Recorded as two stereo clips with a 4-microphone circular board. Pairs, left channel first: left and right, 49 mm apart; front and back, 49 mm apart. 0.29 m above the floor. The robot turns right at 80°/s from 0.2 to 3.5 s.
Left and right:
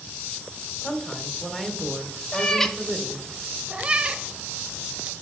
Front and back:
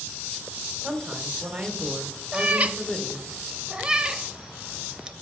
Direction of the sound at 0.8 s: 115° left.